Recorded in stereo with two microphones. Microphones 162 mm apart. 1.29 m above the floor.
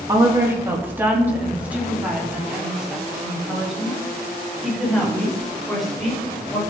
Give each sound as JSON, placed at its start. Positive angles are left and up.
{"t": 0.1, "sound": "a woman speaking", "side_deg": -20, "distance_m": 2.5}